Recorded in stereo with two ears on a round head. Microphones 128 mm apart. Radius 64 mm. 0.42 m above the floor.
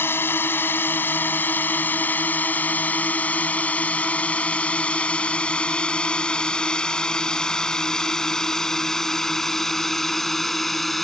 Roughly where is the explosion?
I don't hear an explosion.